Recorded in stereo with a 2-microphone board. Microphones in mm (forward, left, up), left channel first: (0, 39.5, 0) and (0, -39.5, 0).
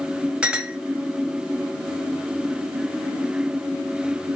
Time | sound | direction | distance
0.4 | a clink | 15° right (ahead or behind) | 0.7 m